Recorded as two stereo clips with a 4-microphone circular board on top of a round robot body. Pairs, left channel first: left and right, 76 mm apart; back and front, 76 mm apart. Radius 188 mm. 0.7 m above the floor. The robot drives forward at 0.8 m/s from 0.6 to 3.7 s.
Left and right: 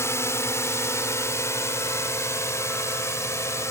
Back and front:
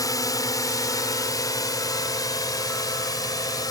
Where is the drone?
140° left.